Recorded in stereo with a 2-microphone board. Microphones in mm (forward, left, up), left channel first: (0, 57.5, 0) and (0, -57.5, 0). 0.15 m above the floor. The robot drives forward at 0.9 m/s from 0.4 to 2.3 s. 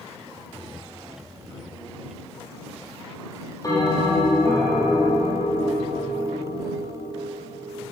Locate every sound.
3.6 s a bell: 35° left (ahead or behind), 4.5 m